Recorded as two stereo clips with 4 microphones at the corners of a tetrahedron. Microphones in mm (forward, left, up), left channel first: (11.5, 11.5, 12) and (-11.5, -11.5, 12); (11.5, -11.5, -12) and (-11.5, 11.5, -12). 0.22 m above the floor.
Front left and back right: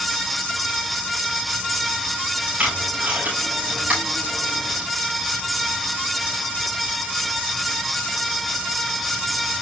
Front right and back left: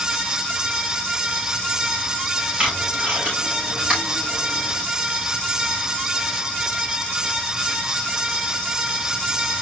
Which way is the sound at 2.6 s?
175° right.